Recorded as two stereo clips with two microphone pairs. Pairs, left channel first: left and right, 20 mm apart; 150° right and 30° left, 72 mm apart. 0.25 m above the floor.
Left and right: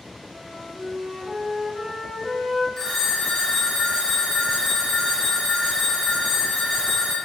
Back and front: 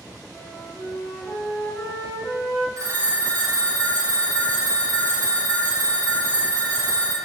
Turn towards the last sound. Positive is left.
turn(degrees=35)